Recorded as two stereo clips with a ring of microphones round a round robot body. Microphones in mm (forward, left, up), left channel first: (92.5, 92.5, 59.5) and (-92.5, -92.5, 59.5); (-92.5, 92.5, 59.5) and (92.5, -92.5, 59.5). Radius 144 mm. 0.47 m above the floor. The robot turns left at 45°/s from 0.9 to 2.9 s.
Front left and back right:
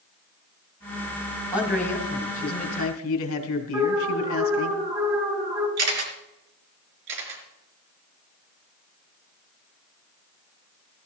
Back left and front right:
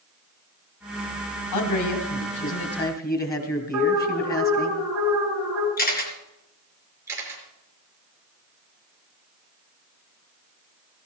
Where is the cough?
I don't hear a cough.